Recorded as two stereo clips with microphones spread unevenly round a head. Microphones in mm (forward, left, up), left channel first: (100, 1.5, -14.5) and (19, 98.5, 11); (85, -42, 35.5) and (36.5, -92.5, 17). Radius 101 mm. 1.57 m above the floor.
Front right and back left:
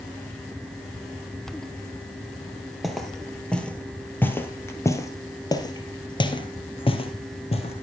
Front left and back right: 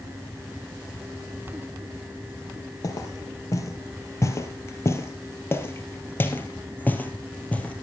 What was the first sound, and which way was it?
Footsteps, 45° left.